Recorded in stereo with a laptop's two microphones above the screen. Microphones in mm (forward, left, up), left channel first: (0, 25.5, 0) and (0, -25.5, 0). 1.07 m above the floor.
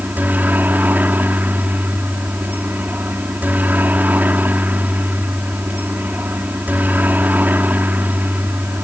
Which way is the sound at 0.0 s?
35° right (ahead or behind).